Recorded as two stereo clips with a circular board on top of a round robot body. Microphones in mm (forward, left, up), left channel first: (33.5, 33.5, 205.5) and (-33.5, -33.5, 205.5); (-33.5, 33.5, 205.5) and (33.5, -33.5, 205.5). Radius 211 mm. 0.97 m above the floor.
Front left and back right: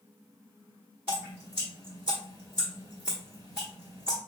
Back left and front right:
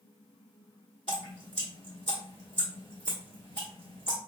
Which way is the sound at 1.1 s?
160° left.